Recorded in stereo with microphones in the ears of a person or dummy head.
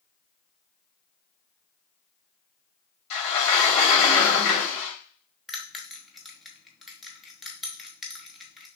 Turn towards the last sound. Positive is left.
turn(degrees=5)  # may be behind; listen again after turning